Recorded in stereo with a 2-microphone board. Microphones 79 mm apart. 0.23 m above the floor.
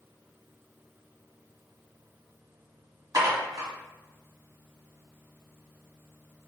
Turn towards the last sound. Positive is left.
turn(degrees=-45)  # may be behind; listen again after turning